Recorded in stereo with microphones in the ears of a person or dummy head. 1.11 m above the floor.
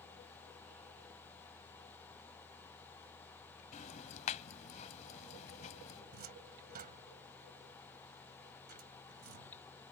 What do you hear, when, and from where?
3.7 s ticking: 35° left (ahead or behind)
6.1 s a cupboard door: 45° right (ahead or behind)